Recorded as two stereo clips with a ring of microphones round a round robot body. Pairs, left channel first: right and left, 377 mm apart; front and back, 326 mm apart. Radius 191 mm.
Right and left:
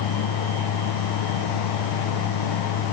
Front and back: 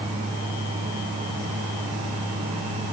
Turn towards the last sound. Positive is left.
No sound to turn to.